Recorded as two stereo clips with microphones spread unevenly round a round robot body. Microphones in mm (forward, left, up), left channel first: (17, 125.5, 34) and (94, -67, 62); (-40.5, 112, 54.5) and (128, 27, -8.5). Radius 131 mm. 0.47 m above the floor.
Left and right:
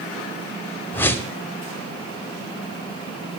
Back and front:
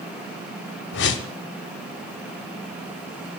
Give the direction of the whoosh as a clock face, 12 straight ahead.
6 o'clock.